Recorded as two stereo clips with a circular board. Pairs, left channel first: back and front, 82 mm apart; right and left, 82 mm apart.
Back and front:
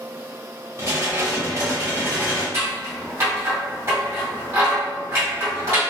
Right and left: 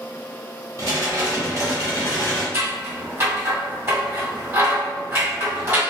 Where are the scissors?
40° left, 1.8 m.